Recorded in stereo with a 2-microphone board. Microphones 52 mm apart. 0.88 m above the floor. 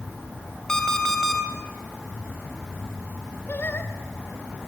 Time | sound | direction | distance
0.7 | an alarm clock | 10° left (ahead or behind) | 2.5 m
3.5 | singing | 45° left (ahead or behind) | 2.0 m